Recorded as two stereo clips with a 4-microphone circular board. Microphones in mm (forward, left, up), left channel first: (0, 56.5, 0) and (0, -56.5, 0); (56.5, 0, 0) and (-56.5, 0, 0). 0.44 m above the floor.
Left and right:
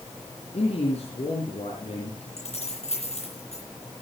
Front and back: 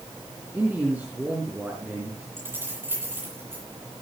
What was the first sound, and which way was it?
A man speaking, 105° left.